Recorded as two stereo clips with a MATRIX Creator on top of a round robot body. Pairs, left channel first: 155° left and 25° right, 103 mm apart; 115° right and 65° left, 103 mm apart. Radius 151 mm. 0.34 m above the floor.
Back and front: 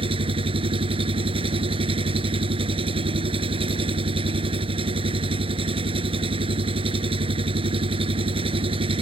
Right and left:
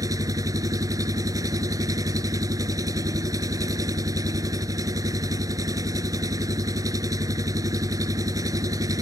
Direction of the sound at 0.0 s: 10° left.